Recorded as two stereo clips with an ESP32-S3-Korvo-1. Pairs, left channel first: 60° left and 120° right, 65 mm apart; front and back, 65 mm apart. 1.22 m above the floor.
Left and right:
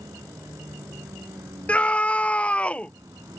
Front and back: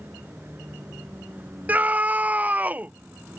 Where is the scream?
125° left.